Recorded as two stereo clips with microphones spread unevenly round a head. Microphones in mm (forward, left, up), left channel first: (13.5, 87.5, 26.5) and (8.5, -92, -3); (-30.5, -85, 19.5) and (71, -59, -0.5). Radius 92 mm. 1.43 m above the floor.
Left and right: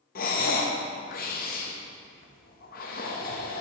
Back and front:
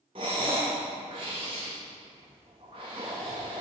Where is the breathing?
75° left, 1.0 m.